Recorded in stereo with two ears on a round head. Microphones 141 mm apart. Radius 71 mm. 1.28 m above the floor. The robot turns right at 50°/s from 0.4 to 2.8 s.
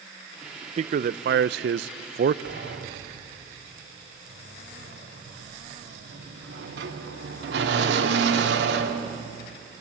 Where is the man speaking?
135° right, 0.6 m; by 2.4 s 55° right, 0.6 m.